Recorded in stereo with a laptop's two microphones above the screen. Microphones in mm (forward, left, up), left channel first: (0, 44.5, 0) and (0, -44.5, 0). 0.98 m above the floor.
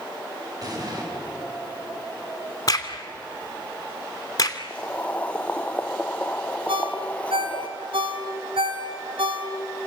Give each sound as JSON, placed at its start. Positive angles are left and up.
{"t": 0.6, "sound": "an explosion", "side_deg": -45, "distance_m": 7.0}
{"t": 2.7, "sound": "a crack", "side_deg": 45, "distance_m": 2.5}
{"t": 4.7, "sound": "boiling", "side_deg": 15, "distance_m": 1.0}
{"t": 6.7, "sound": "a ringtone", "side_deg": -85, "distance_m": 3.5}